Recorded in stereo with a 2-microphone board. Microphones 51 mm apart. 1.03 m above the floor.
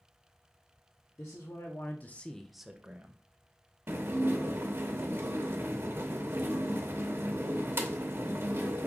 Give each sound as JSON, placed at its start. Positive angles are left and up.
{"t": 1.2, "sound": "a man speaking", "side_deg": 70, "distance_m": 1.0}
{"t": 3.9, "sound": "dishes clattering", "side_deg": -50, "distance_m": 0.8}